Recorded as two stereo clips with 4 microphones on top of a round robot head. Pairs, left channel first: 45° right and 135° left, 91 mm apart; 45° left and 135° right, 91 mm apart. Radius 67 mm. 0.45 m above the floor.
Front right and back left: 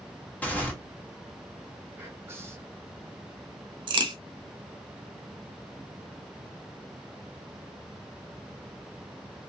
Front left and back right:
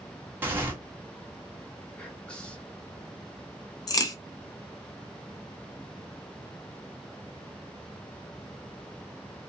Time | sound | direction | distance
0.4 | tearing paper | 95° right | 1.3 m
2.0 | whispering | 110° left | 1.3 m
3.9 | a crack | 95° left | 0.7 m